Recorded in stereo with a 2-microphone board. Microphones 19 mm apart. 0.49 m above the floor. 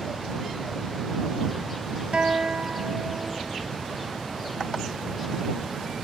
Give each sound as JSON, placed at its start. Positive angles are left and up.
{"t": 2.1, "sound": "a guitar", "side_deg": -65}